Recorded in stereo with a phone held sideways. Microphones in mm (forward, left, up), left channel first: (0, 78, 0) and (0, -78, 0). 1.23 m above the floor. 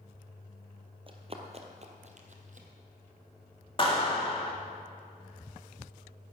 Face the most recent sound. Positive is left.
turn(degrees=35)  # may be behind; listen again after turning